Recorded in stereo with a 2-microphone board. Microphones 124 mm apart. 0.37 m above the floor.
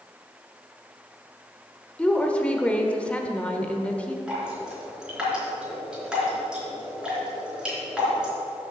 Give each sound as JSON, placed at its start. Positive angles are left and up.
{"t": 2.0, "sound": "a woman speaking", "side_deg": 10, "distance_m": 0.9}
{"t": 4.3, "sound": "dripping", "side_deg": -5, "distance_m": 3.5}